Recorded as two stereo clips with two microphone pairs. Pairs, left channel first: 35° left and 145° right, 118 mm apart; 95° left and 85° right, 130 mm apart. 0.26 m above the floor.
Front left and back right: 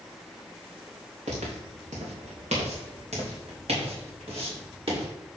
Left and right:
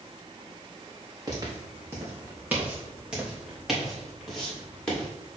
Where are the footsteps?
140° right, 2.5 m; by 5.1 s straight behind, 4 m.